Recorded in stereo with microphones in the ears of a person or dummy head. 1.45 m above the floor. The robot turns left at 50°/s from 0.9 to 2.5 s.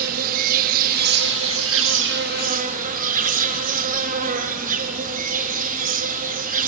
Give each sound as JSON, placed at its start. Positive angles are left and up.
{"t": 0.0, "sound": "an insect", "azimuth_deg": -50, "distance_m": 1.6}